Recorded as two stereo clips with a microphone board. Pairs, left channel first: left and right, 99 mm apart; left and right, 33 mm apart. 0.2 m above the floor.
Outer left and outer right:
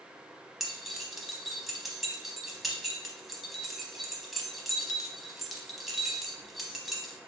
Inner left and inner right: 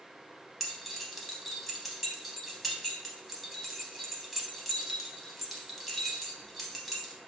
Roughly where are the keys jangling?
Centre.